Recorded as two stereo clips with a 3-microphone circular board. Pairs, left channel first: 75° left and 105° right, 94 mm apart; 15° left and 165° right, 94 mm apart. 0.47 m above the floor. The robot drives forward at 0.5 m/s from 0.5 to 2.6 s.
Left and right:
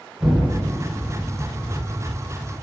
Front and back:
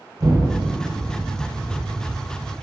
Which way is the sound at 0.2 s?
165° left.